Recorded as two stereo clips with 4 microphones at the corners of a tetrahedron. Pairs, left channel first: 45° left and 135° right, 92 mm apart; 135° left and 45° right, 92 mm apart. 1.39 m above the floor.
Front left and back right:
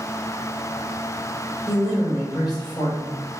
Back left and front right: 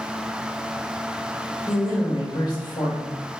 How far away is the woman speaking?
About 2.0 m.